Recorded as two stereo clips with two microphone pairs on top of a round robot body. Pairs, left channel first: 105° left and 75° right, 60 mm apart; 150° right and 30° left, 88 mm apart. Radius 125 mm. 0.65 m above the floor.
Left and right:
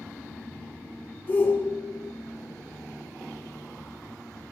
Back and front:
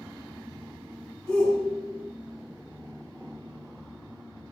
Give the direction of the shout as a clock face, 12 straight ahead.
7 o'clock.